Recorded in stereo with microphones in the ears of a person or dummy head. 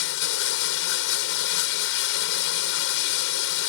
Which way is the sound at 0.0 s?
65° left (ahead or behind).